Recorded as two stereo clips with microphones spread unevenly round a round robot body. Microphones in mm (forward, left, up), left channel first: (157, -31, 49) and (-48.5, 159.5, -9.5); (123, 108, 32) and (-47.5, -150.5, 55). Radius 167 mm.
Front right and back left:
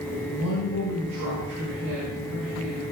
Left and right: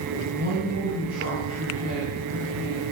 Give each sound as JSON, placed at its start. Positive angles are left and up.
{"t": 0.1, "sound": "a woman speaking", "azimuth_deg": 180, "distance_m": 7.0}